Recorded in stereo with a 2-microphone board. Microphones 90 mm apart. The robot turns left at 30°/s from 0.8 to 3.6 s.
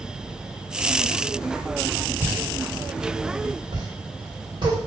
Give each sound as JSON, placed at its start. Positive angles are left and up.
{"t": 2.2, "sound": "a pop", "side_deg": -15, "distance_m": 2.0}